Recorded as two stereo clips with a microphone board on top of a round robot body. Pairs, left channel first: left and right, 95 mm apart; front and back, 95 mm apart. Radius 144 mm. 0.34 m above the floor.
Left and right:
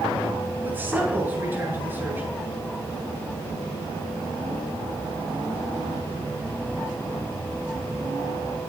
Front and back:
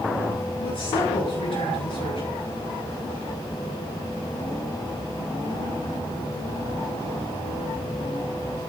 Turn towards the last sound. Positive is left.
turn(degrees=-20)